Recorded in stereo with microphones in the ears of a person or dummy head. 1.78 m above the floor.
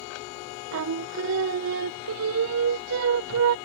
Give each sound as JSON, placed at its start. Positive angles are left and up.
{"t": 0.7, "sound": "singing", "side_deg": -65}